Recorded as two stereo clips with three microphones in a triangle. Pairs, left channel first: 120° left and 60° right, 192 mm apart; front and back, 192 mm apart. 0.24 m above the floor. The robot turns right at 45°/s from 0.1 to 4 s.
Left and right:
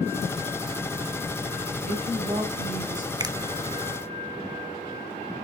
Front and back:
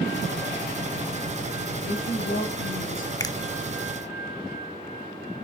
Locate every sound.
1.9 s a woman speaking: 10° right, 4.5 m; by 3.1 s 45° left, 4.5 m
3.2 s a finger snap: 35° right, 0.8 m; by 3.4 s 30° right, 0.8 m